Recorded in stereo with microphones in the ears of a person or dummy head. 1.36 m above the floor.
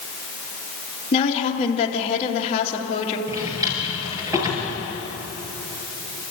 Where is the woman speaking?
30° left (ahead or behind), 2.5 m.